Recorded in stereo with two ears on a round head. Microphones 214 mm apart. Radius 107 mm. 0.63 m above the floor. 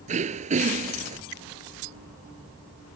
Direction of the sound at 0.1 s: 30° right (ahead or behind).